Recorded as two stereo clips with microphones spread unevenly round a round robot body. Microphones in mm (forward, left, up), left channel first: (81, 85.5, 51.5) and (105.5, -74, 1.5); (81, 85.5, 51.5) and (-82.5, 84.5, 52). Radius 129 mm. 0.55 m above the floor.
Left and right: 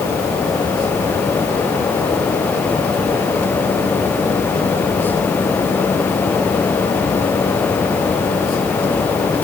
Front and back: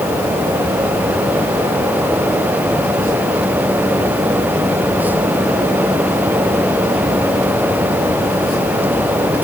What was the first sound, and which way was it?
Only background noise.